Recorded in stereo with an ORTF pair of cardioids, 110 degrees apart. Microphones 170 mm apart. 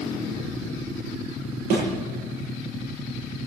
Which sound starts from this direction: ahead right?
A thud, at 1.7 s.